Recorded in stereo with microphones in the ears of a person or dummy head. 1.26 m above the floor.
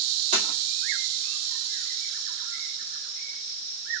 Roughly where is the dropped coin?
Right.